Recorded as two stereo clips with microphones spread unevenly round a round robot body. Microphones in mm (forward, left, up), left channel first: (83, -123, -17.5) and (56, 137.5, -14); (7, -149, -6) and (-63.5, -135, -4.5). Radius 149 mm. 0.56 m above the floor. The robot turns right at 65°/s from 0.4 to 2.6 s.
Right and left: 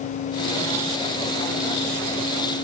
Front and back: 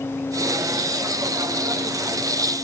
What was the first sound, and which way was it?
Only background noise.